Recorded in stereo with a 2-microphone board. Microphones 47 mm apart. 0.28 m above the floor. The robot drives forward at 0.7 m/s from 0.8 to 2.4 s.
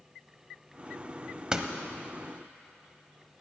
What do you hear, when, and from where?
1.5 s a door slam: 20° right (ahead or behind), 0.9 m